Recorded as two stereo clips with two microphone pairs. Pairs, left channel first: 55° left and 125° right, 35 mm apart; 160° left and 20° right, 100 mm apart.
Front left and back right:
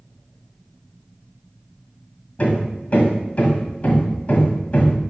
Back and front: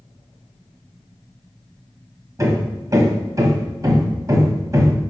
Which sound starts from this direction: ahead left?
Hammering, at 2.4 s.